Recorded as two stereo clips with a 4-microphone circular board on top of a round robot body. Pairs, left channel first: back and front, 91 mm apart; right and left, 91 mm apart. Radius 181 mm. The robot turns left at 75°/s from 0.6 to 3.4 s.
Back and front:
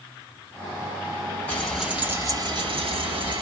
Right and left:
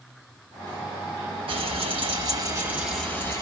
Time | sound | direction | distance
1.5 | frying | 110° left | 1.7 m